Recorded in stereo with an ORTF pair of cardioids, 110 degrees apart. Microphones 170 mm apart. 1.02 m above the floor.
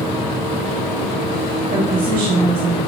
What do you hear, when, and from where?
1.7 s a woman speaking: 55° right, 1.6 m